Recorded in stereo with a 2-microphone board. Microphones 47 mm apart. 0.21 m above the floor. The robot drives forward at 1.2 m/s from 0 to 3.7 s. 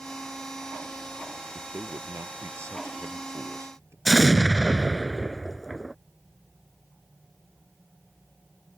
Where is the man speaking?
65° right (ahead or behind); by 4.0 s 75° right (ahead or behind).